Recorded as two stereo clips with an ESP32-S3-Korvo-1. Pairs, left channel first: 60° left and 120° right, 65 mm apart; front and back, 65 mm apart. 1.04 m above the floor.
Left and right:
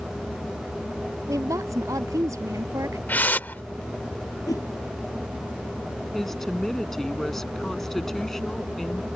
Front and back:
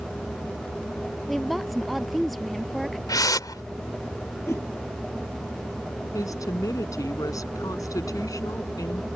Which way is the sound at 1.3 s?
90° right.